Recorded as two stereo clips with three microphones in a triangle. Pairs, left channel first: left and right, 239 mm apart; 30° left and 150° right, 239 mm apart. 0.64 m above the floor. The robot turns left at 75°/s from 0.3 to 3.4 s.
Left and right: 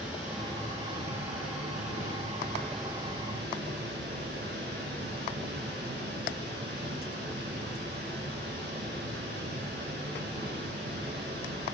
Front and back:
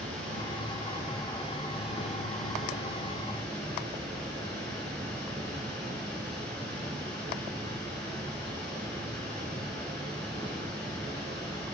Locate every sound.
0.0 s running water: 170° right, 3.5 m; by 11.7 s 45° right, 3.5 m